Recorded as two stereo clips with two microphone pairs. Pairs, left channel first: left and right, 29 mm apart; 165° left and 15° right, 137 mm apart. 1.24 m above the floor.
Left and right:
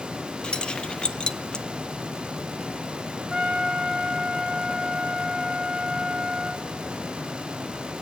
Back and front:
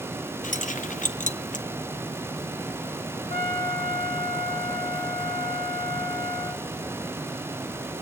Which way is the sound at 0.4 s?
140° left.